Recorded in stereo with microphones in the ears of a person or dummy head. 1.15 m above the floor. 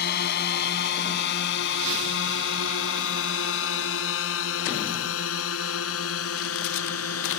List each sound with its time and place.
0.0 s a drone: 55° left (ahead or behind); by 7.4 s 80° left